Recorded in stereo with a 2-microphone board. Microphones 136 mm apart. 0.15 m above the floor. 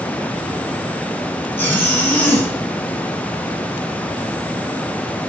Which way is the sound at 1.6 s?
15° left (ahead or behind).